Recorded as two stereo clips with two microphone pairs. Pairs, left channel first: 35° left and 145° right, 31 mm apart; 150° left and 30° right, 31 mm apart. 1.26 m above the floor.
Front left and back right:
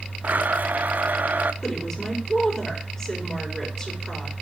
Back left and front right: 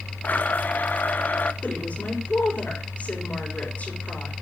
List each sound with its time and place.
0.2 s a blender: 175° right, 0.7 m
1.6 s a woman speaking: 115° left, 5 m